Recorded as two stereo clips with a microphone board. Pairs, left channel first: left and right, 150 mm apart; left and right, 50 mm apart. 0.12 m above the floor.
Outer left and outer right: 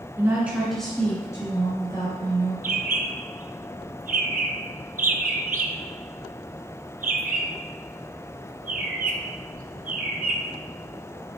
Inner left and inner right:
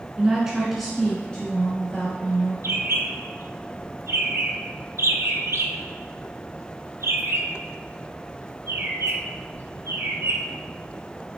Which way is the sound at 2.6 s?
75° right (ahead or behind).